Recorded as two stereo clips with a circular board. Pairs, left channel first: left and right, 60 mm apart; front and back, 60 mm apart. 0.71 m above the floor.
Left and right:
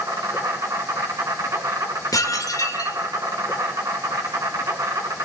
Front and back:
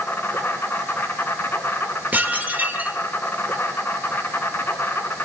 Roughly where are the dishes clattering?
Behind left.